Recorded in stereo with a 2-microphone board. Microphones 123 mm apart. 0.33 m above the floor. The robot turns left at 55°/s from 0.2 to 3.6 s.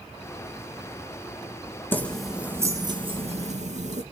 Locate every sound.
1.9 s keys jangling: 15° left, 2.5 m; by 4.0 s 75° right, 2.5 m